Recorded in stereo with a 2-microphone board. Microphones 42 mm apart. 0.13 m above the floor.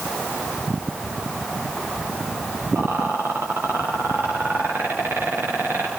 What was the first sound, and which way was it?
A rattle, 65° right (ahead or behind).